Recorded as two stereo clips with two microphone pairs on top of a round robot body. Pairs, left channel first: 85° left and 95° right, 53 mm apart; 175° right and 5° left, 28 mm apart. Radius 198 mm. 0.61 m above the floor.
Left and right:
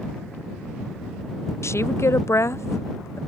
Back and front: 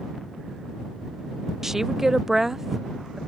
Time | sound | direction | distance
1.6 | a woman speaking | 85° left | ?